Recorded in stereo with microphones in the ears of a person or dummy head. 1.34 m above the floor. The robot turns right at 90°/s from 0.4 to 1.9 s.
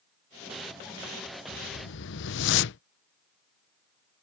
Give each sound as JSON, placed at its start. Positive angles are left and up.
{"t": 1.5, "sound": "a whoosh", "azimuth_deg": 35}